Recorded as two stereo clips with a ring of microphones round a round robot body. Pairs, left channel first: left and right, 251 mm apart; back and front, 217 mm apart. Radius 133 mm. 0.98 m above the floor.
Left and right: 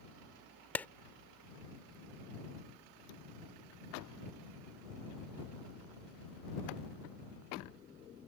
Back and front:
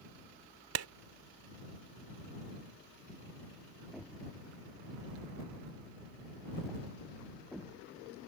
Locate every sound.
0.8 s a clap: 5° left